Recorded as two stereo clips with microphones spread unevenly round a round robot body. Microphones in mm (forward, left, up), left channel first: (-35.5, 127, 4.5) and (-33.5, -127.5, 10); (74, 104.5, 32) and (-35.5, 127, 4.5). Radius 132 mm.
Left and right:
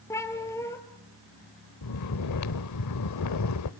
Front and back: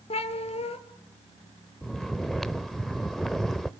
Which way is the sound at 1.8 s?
80° left.